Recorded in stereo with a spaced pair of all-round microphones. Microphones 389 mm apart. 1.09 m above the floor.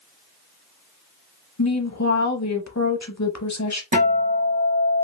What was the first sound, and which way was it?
A woman speaking, 45° left (ahead or behind).